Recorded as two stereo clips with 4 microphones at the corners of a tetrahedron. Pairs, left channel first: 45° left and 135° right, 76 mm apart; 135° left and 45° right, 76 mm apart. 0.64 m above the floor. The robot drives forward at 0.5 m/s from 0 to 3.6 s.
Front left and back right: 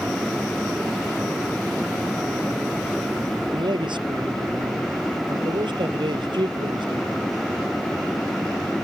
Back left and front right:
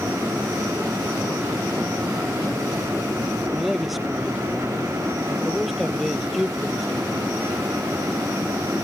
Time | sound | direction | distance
3.5 | a man speaking | 135° right | ?